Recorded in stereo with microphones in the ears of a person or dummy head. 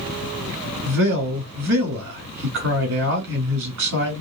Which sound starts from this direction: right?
A man speaking, at 0.8 s.